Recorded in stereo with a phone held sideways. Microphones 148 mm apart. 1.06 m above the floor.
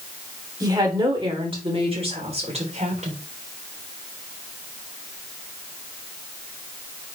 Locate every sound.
0.6 s a woman speaking: 25° right (ahead or behind), 3.5 m; by 3.2 s 50° right (ahead or behind), 3.5 m